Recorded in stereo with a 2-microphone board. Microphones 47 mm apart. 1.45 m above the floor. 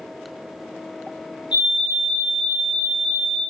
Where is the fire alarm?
20° right (ahead or behind), 0.9 m.